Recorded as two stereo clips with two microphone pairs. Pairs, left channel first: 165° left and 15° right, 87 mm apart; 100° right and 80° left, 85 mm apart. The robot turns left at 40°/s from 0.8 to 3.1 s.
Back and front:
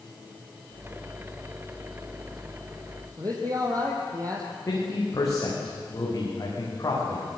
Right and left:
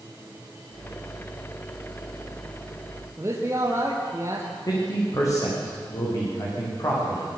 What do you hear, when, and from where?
3.2 s a man speaking: 25° left, 3 m
4.7 s a man speaking: 150° right, 8 m